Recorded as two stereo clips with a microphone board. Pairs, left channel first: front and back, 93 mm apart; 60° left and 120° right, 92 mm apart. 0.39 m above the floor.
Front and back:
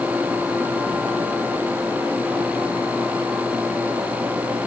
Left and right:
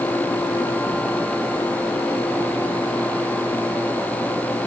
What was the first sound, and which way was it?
Only background noise.